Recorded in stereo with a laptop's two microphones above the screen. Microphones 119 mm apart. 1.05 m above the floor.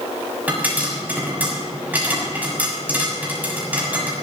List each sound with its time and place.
0.5 s a pop: 15° right (ahead or behind), 7 m